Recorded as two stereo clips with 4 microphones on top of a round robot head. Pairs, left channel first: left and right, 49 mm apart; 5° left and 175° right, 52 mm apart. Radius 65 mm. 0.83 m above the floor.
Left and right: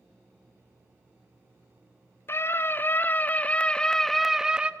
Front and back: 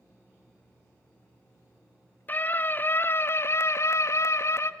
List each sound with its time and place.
2.3 s a scream: 60° left, 2.5 m; by 4.7 s 25° right, 1.4 m